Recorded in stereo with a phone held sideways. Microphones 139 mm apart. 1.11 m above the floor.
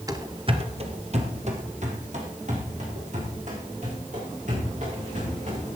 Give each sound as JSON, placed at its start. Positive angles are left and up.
{"t": 0.1, "sound": "running footsteps", "side_deg": -25, "distance_m": 1.1}